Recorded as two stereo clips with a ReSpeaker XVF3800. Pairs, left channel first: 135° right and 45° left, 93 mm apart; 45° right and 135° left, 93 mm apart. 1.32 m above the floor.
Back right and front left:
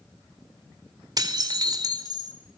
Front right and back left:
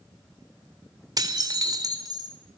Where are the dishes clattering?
90° left, 3.5 m.